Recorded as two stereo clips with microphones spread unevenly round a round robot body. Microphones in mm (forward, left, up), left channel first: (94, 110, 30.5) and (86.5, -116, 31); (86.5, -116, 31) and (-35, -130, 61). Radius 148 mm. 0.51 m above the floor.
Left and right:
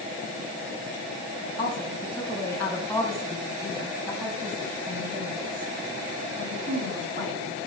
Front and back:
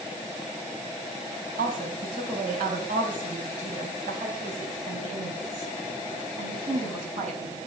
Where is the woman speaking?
165° left, 4 m; by 7.6 s 155° right, 5 m.